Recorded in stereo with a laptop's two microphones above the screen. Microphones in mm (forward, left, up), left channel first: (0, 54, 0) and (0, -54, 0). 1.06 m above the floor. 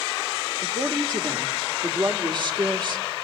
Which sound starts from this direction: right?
A woman speaking, at 0.6 s.